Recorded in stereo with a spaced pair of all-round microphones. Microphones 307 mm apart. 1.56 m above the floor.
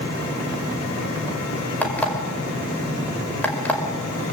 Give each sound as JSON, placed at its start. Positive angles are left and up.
{"t": 1.8, "sound": "an alarm clock", "side_deg": 5, "distance_m": 4.5}